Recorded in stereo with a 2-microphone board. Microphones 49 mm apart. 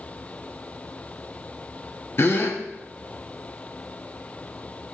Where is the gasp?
45° left (ahead or behind), 0.8 m.